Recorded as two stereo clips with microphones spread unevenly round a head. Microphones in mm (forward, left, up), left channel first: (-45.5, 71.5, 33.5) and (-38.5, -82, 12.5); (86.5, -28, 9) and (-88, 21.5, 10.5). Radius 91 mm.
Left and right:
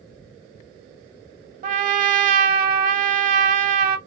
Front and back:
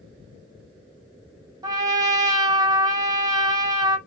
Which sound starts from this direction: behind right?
A trumpet, at 1.6 s.